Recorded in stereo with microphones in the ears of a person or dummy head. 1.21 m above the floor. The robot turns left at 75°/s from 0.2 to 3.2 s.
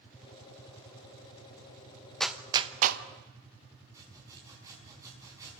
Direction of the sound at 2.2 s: 5° left (ahead or behind).